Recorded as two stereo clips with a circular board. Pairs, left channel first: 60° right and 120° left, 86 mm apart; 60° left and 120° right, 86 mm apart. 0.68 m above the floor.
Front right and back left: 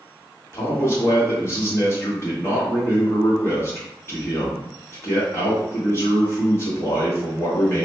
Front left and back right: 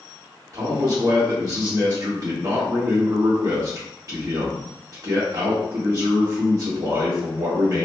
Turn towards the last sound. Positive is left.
turn(degrees=-105)